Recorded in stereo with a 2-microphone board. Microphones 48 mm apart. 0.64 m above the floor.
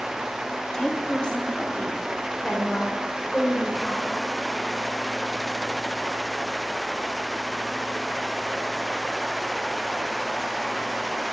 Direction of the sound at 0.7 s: 15° left (ahead or behind).